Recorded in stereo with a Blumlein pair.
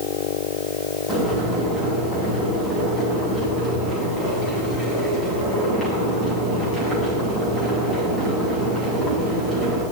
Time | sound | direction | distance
1.1 | boiling | 10° left | 9.5 m